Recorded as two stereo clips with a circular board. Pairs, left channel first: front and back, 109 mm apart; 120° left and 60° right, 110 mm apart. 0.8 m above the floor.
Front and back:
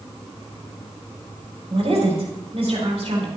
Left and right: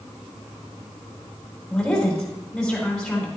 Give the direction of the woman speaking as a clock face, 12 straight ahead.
5 o'clock.